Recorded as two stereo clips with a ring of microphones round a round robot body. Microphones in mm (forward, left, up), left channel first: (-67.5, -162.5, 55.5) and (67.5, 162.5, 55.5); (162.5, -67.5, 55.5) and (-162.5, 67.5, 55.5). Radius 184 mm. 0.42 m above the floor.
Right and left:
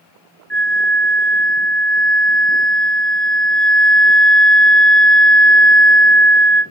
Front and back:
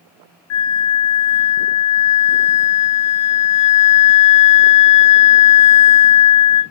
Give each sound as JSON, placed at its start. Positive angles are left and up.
{"t": 0.5, "sound": "a flute", "azimuth_deg": -25, "distance_m": 1.0}